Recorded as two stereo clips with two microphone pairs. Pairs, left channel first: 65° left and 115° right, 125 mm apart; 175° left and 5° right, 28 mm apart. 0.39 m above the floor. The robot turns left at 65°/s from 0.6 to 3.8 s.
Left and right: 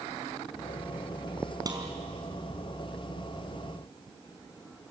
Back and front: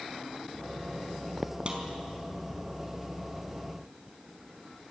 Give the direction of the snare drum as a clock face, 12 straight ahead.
2 o'clock.